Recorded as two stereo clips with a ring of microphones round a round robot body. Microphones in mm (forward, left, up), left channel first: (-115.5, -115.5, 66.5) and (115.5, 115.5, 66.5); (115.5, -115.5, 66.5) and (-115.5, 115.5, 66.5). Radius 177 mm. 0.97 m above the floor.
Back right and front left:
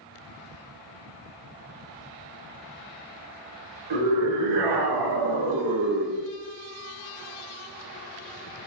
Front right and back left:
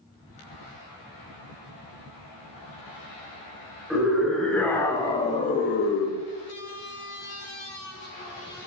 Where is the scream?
45° left, 3.5 m; by 6.2 s 25° right, 1.1 m.